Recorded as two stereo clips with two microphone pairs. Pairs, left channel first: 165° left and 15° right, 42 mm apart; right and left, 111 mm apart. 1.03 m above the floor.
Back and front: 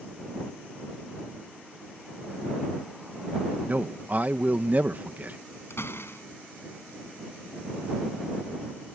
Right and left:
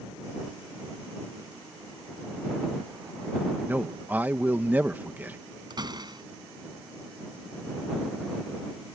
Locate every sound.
3.7 s a man speaking: 20° left
5.7 s a door slam: 145° left